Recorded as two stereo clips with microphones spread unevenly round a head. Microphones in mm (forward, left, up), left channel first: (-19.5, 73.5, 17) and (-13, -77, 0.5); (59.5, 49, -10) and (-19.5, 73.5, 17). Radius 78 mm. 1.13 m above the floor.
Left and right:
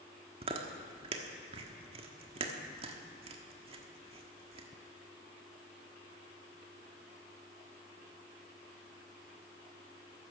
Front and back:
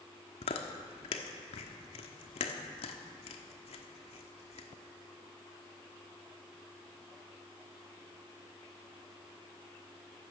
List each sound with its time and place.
0.4 s chewing: 30° right, 1.2 m